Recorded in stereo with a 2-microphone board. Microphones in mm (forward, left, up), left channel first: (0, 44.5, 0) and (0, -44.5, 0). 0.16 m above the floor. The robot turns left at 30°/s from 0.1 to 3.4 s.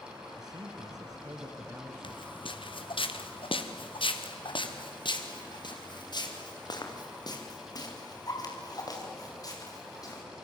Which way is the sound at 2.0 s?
70° left (ahead or behind).